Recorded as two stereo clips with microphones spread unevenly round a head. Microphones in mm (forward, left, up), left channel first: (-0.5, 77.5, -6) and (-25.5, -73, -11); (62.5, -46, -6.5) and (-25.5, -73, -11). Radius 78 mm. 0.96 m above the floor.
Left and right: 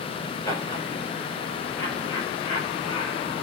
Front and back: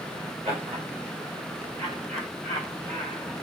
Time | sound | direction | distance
0.5 | laughter | 150° left | 4 m